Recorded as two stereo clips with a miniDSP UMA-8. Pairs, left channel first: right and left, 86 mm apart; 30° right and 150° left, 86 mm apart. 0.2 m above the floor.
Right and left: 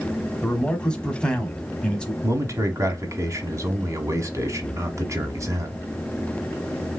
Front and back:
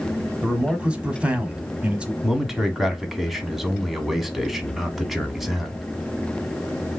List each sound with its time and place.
0.4 s a man speaking: 150° right, 1.1 m
2.2 s a man speaking: 65° left, 1.2 m